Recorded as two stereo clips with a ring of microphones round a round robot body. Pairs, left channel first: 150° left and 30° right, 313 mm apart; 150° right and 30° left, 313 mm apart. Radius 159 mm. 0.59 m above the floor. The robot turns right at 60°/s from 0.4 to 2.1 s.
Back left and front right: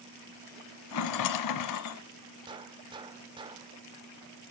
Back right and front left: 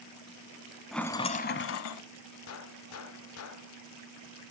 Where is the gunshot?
105° right, 0.9 m.